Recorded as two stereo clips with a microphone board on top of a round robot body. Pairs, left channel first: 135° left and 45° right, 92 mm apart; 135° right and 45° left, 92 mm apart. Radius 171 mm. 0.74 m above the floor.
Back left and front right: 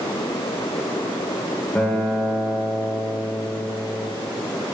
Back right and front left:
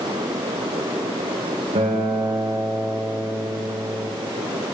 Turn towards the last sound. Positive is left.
turn(degrees=55)